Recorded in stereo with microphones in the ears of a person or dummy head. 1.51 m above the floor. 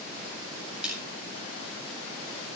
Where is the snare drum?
10° right (ahead or behind), 8.5 m.